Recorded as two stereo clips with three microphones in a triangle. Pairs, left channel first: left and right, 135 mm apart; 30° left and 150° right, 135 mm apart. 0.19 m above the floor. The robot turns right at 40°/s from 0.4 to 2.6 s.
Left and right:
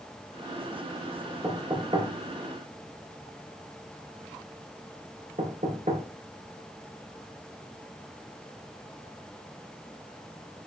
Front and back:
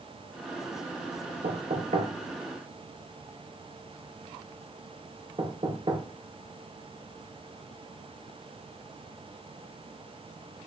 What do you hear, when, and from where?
1.4 s knocking: 155° right, 3 m; by 6.0 s 105° right, 3 m